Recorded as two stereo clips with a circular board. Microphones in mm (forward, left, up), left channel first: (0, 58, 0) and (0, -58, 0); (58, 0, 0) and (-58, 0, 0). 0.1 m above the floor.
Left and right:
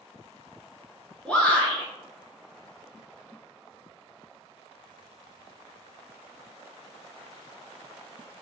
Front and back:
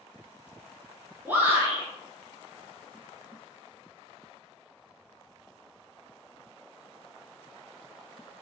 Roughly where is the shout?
Behind left.